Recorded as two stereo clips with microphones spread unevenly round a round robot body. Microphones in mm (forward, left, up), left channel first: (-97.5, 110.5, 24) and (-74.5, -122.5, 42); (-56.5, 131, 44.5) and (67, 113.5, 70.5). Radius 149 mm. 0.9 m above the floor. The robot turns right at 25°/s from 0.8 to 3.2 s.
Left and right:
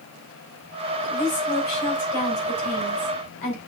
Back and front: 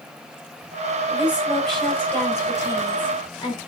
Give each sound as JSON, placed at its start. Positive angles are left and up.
{"t": 1.1, "sound": "a woman speaking", "azimuth_deg": 70, "distance_m": 4.5}